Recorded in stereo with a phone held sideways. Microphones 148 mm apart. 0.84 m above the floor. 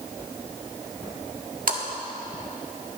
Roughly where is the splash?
Right.